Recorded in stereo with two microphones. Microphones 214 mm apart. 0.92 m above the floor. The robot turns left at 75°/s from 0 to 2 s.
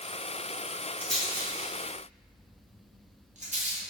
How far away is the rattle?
About 0.6 m.